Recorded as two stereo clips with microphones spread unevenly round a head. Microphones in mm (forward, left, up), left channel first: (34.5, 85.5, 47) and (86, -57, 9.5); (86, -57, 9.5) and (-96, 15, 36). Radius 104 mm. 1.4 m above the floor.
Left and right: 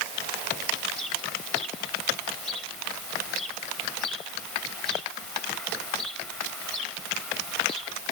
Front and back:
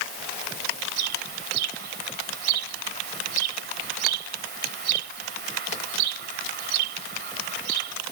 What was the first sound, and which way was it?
A bird, 165° right.